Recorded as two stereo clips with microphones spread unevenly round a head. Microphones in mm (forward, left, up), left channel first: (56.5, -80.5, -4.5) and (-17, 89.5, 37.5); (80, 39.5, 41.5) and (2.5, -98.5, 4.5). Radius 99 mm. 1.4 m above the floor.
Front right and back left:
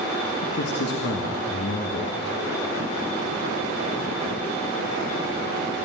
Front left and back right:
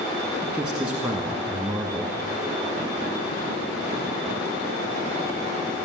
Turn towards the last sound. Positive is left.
turn(degrees=-30)